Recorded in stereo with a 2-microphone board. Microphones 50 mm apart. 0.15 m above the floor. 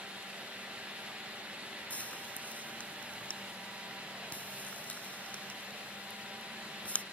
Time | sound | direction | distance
1.9 | frying | 30° left (ahead or behind) | ?